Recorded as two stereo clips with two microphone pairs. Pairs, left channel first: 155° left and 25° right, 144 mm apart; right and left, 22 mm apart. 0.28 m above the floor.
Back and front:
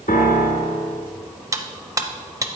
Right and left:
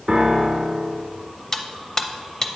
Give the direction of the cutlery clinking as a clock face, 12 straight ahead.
2 o'clock.